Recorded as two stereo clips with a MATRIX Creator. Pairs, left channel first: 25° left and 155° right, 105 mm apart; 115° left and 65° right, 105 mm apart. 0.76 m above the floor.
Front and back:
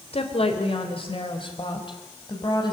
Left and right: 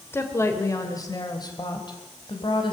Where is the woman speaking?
45° left, 3 m; by 2.7 s 70° left, 5 m.